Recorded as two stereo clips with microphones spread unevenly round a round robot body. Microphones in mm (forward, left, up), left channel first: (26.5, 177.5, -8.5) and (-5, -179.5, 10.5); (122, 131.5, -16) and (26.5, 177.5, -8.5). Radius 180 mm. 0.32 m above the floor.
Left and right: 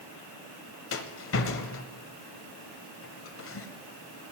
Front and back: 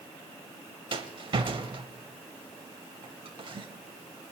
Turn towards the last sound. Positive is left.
turn(degrees=130)